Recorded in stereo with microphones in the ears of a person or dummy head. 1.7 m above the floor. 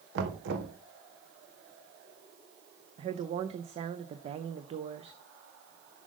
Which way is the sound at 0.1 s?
75° right (ahead or behind).